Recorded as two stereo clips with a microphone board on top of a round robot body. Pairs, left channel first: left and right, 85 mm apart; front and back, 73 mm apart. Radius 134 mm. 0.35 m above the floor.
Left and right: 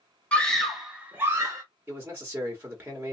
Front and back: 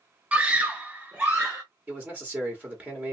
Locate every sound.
0.3 s a scream: 140° left, 1.0 m; by 1.6 s 110° right, 1.1 m
1.9 s a man speaking: 130° right, 1.3 m